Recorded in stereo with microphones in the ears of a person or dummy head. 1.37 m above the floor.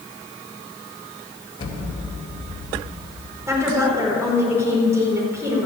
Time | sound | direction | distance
1.6 | an explosion | 30° left (ahead or behind) | 2.5 m
3.5 | a woman speaking | 15° right (ahead or behind) | 4.5 m